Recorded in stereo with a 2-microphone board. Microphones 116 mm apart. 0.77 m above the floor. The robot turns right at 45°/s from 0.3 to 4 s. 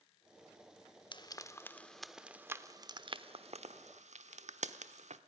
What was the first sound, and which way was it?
Frying, 45° left (ahead or behind).